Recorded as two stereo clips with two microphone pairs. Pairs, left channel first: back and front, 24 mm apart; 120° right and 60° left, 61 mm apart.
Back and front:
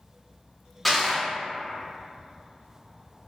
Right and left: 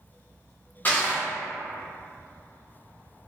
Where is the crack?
I don't hear a crack.